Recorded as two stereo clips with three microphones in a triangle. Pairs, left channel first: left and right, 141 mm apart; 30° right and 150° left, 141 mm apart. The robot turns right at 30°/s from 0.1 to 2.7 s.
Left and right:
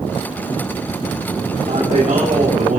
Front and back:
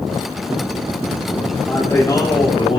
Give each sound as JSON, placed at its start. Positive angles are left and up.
{"t": 1.6, "sound": "a man speaking", "azimuth_deg": -110, "distance_m": 4.0}